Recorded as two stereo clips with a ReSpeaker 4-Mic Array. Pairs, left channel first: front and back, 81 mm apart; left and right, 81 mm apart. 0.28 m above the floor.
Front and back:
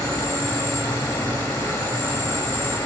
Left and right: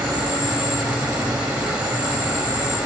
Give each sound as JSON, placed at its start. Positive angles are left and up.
{"t": 0.0, "sound": "an insect", "azimuth_deg": -20, "distance_m": 0.8}